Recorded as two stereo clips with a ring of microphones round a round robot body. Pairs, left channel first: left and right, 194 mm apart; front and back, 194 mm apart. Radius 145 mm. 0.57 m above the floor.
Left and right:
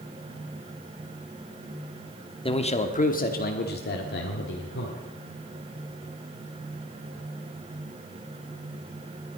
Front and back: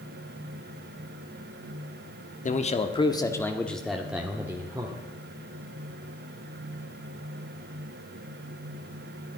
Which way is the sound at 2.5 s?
35° left.